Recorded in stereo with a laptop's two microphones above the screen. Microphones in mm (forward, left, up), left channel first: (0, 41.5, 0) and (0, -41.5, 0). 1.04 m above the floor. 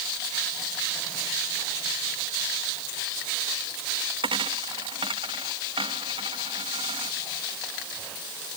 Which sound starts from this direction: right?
A dropped coin, at 4.2 s.